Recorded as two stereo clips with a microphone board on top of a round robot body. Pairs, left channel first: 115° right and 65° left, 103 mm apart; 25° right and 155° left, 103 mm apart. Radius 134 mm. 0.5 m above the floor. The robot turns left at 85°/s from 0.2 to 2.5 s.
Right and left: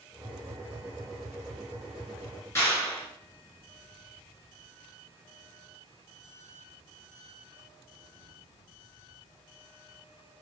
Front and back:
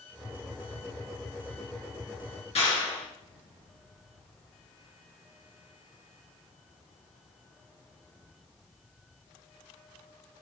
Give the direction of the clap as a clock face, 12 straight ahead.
2 o'clock.